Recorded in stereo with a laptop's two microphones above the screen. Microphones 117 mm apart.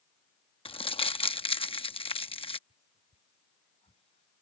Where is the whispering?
60° left (ahead or behind).